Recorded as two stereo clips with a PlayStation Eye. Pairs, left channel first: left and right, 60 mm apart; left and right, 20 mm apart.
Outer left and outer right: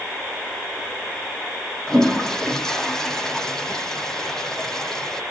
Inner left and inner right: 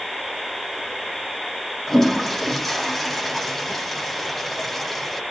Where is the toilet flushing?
10° left (ahead or behind), 2 m.